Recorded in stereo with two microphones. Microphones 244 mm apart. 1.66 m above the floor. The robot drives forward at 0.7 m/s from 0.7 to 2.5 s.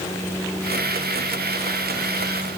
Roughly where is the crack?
I don't hear a crack.